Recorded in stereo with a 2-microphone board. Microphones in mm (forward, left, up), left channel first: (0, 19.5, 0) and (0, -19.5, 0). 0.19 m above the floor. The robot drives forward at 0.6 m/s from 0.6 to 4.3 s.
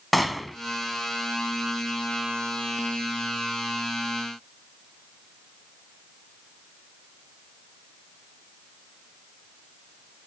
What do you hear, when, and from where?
0.1 s a gunshot: centre (ahead or behind), 1.1 m